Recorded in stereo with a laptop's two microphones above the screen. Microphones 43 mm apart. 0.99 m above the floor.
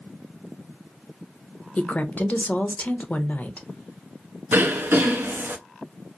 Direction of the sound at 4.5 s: 55° right (ahead or behind).